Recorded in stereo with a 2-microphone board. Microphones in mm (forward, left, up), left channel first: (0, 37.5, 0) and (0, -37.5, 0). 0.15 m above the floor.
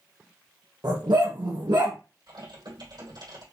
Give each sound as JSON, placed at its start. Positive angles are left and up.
{"t": 0.8, "sound": "a dog barking", "side_deg": -75, "distance_m": 2.5}
{"t": 2.3, "sound": "typing on a keyboard", "side_deg": -70, "distance_m": 3.5}